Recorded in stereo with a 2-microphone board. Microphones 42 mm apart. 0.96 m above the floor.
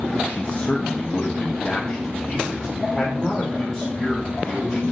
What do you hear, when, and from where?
0.3 s a man speaking: 35° left (ahead or behind), 0.6 m; by 4.9 s 10° right (ahead or behind), 3.5 m